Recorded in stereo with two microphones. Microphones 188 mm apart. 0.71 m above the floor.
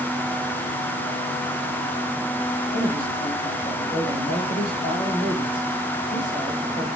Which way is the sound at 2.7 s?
60° left (ahead or behind).